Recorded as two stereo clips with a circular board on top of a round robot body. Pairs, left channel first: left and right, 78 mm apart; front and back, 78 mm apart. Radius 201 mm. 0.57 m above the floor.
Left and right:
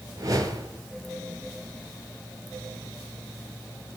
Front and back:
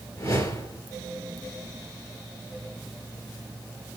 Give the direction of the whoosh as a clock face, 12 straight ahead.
2 o'clock.